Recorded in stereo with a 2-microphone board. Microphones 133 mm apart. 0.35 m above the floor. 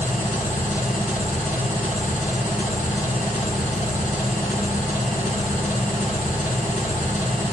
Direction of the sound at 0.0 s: 70° left (ahead or behind).